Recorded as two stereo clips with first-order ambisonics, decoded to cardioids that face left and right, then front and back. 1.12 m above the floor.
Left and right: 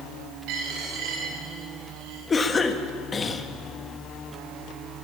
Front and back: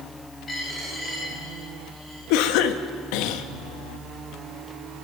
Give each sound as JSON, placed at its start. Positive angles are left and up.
{"t": 0.5, "sound": "a dropped coin", "azimuth_deg": -70, "distance_m": 9.5}
{"t": 2.3, "sound": "a cough", "azimuth_deg": 20, "distance_m": 1.7}